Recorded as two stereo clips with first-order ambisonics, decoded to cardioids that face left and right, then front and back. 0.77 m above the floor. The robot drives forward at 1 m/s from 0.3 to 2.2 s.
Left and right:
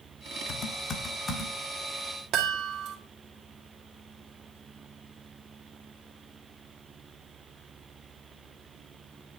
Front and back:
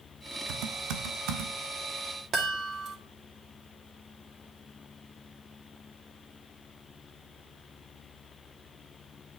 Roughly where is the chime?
Behind right.